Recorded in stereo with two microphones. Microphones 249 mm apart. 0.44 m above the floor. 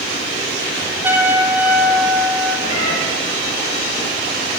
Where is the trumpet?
10° right (ahead or behind), 1.1 m.